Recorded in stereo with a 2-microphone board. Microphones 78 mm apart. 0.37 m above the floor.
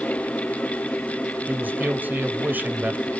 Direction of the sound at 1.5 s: 25° right (ahead or behind).